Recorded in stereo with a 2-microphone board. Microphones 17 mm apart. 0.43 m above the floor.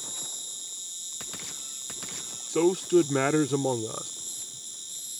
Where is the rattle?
I don't hear a rattle.